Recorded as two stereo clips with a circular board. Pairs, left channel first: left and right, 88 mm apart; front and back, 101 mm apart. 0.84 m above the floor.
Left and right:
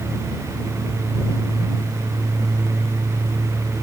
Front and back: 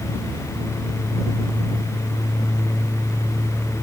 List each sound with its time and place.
Only background noise.